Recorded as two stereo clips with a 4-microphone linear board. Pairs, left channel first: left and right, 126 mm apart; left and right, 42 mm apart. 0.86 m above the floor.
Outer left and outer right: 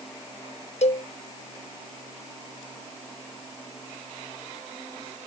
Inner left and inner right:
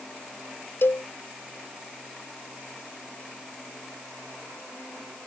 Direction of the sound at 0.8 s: 65° left (ahead or behind).